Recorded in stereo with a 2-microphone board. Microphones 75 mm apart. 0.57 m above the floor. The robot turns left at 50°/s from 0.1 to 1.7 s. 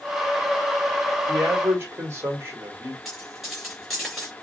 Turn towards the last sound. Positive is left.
turn(degrees=0)  # may be behind; listen again after turning